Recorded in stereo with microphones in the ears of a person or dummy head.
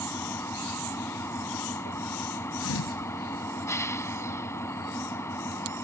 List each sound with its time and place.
0.0 s an engine running: 15° left (ahead or behind)
2.6 s a thud: 75° left (ahead or behind)